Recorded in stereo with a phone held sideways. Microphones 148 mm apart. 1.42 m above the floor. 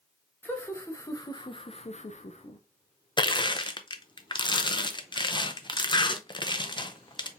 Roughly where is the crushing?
Left.